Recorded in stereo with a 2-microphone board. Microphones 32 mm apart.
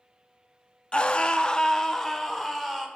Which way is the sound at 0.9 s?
35° left (ahead or behind).